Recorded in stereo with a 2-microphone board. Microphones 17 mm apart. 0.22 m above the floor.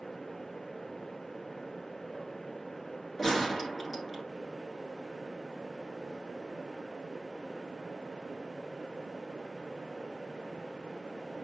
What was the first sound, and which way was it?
A gunshot, 10° left (ahead or behind).